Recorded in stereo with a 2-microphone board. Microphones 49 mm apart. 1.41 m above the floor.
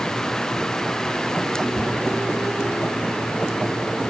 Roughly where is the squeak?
Left.